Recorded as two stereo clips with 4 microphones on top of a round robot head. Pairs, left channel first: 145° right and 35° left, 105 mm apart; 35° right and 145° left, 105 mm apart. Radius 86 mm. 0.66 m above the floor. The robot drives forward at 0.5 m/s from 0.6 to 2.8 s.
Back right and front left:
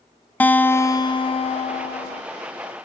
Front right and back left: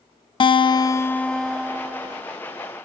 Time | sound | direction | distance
0.4 | a guitar | 70° right | 0.5 m